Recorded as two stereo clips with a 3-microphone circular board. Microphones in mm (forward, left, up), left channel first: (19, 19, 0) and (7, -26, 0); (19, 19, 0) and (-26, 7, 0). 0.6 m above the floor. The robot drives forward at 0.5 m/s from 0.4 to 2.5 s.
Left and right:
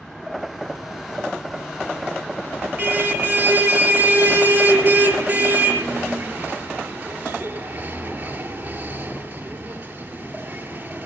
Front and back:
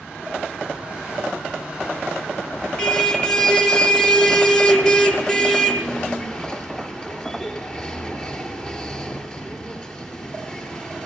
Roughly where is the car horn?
Ahead right.